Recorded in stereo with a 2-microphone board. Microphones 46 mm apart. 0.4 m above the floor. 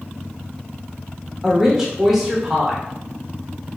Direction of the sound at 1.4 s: 5° right (ahead or behind).